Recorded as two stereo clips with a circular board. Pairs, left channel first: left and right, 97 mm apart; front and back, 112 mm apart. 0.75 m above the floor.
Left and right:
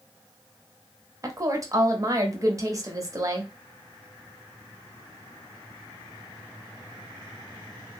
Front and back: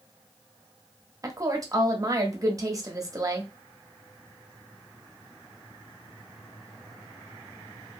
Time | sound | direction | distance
1.2 | a woman speaking | 135° right | 0.7 m